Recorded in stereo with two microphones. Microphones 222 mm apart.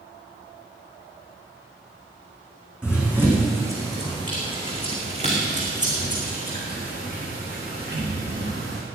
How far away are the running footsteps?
About 4 m.